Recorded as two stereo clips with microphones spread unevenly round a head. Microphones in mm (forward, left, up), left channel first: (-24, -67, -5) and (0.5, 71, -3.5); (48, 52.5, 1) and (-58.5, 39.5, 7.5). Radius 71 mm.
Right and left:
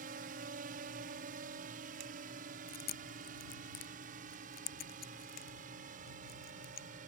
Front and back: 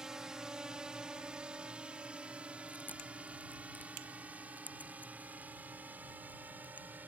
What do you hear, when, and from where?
0.0 s a drone: 100° left; by 7.1 s 115° left
2.7 s chewing: 75° right